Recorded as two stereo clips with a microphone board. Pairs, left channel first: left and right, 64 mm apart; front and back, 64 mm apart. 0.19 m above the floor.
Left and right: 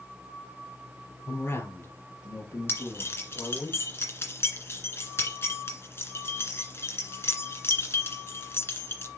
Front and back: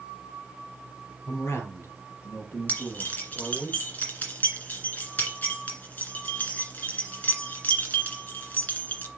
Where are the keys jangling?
55° left, 1.8 m.